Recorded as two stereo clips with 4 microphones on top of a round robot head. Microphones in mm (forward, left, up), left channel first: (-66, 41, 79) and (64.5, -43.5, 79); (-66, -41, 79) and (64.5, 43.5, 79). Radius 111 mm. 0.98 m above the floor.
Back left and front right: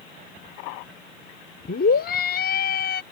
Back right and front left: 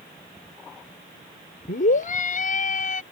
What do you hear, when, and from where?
1.7 s a scream: 175° left